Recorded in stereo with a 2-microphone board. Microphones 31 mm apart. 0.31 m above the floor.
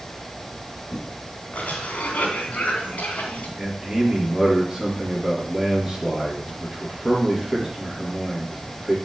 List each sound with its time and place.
1.5 s a cough: 55° left (ahead or behind), 2 m
3.6 s a man speaking: 10° right (ahead or behind), 4 m